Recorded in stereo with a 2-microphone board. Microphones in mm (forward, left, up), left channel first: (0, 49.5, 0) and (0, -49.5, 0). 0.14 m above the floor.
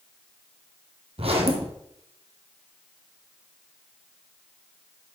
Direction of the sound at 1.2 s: 80° right.